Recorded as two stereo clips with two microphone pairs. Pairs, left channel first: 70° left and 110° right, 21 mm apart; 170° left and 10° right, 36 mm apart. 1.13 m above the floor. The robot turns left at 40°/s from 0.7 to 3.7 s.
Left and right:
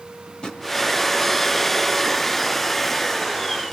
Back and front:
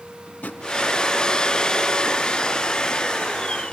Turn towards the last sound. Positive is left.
turn(degrees=5)